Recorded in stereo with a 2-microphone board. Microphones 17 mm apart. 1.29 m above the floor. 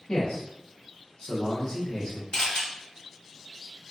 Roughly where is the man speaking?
Left.